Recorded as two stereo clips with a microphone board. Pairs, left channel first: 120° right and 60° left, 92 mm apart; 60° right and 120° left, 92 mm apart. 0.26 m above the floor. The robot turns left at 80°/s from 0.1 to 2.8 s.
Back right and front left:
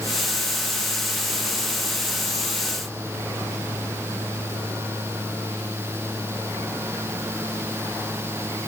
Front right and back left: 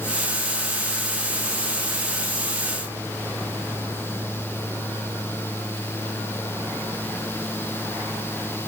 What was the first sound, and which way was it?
Only background noise.